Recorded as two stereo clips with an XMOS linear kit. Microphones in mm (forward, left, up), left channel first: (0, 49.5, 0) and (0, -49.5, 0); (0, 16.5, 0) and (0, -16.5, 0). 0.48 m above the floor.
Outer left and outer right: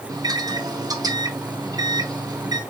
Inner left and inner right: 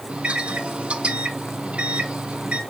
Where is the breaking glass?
I don't hear breaking glass.